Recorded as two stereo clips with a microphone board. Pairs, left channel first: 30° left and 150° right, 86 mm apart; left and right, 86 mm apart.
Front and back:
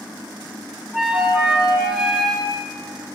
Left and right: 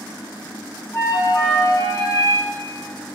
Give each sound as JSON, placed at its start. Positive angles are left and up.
{"t": 0.9, "sound": "a flute", "azimuth_deg": 130, "distance_m": 2.5}